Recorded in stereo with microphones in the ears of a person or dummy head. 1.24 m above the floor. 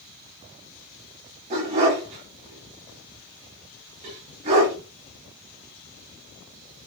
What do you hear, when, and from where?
1.5 s a dog barking: 20° right (ahead or behind), 0.7 m